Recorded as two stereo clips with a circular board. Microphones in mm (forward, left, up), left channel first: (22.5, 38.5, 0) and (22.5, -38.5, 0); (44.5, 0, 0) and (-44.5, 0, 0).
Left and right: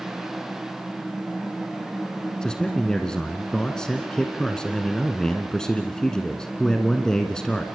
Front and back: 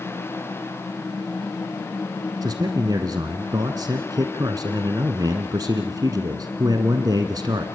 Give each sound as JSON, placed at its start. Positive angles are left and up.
{"t": 2.4, "sound": "a man speaking", "azimuth_deg": 170, "distance_m": 1.5}